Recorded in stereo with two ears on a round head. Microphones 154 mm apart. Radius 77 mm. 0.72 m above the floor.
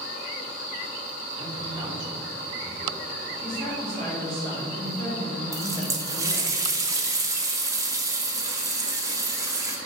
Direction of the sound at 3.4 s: 40° right (ahead or behind).